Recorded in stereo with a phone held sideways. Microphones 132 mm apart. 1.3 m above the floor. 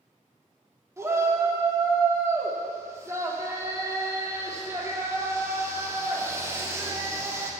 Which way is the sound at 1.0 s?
20° right (ahead or behind).